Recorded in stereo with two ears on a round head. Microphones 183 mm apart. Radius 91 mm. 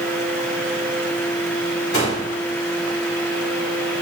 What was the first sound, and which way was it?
A gunshot, 45° left (ahead or behind).